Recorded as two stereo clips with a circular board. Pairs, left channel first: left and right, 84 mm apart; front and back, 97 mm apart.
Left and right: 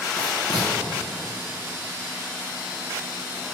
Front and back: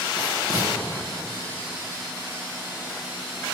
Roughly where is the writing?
Ahead left.